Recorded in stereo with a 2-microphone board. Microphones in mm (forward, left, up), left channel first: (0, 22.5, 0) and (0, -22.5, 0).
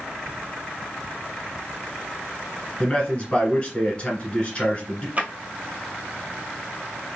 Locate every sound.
2.8 s a man speaking: 25° left (ahead or behind), 1.4 m
5.2 s a drawer: 35° right (ahead or behind), 0.7 m